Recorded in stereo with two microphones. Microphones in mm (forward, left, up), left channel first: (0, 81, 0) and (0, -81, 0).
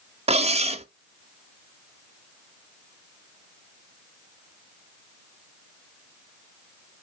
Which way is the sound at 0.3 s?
40° right (ahead or behind).